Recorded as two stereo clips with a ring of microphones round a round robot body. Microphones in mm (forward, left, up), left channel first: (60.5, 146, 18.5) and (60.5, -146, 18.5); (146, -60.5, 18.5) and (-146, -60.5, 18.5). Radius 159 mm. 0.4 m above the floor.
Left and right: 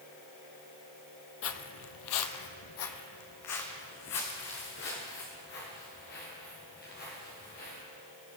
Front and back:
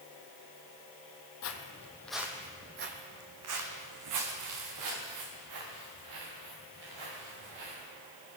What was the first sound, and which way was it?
Footsteps, 45° left.